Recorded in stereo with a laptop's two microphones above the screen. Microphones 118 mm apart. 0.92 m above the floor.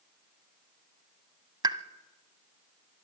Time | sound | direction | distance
1.6 | a pop | 40° right (ahead or behind) | 0.9 m